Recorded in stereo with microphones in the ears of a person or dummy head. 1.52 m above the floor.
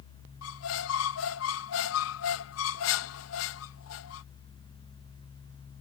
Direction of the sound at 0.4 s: 65° left (ahead or behind).